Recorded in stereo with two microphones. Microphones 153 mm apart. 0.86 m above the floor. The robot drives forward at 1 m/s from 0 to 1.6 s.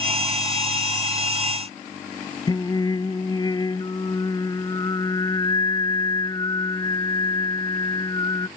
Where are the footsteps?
No footsteps in this recording.